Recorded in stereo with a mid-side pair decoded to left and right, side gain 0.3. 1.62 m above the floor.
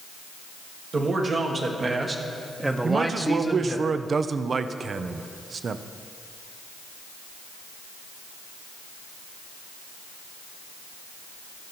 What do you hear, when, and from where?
0.9 s a man speaking: 65° right, 1.9 m; by 3.8 s 25° left, 1.0 m
2.8 s a man speaking: 60° right, 0.5 m